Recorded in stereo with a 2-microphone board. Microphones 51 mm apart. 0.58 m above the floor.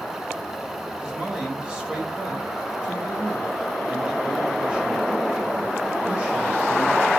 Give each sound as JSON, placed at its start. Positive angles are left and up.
{"t": 1.0, "sound": "a man speaking", "side_deg": -20, "distance_m": 2.5}